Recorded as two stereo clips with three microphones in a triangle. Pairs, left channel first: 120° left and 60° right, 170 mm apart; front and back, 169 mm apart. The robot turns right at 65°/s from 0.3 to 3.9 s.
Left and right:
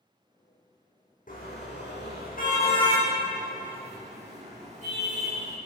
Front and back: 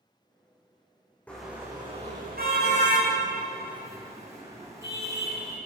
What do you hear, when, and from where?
1.3 s a car horn: 80° left, 6 m; by 5.6 s 110° right, 6 m